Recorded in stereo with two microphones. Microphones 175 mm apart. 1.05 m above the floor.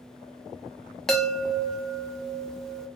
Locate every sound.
1.1 s a chime: centre (ahead or behind), 0.6 m